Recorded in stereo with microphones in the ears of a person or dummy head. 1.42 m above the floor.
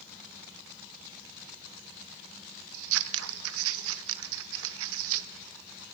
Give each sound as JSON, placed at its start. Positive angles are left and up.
{"t": 2.7, "sound": "scissors", "side_deg": -80, "distance_m": 0.9}